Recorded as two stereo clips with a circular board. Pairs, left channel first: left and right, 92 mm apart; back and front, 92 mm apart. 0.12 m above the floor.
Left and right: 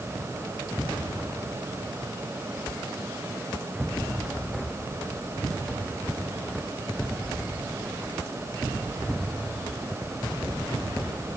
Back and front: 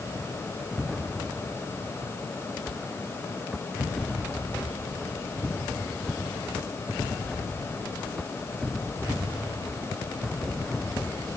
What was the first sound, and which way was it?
Only background noise.